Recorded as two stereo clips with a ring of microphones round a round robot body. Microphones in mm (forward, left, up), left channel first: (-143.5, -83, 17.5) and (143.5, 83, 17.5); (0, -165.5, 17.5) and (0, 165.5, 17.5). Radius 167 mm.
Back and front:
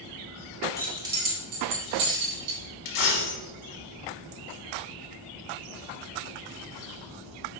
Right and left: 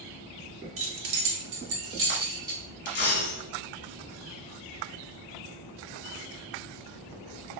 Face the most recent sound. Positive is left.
turn(degrees=-150)